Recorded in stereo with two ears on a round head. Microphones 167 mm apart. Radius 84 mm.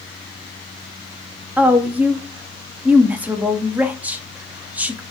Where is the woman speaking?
10° right (ahead or behind), 0.6 m.